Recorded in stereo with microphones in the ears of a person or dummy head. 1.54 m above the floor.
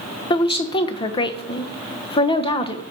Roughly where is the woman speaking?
Left.